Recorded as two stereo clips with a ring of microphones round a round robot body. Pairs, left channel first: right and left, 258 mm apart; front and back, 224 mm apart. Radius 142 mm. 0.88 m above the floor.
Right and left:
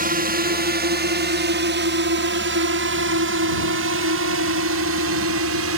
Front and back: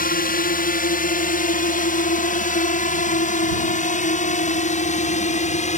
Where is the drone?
40° left; by 5.8 s 55° left.